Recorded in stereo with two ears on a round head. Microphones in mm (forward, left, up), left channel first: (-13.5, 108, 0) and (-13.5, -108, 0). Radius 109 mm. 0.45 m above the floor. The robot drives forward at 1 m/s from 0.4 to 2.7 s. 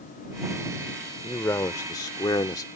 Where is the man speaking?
10° left (ahead or behind); by 2.7 s 15° left (ahead or behind).